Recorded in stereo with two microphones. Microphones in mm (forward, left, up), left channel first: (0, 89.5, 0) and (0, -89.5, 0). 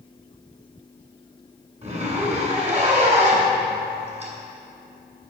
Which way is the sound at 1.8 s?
40° right (ahead or behind).